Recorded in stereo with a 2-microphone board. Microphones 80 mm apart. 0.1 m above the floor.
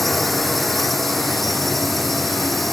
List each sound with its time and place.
0.0 s a drone: centre (ahead or behind)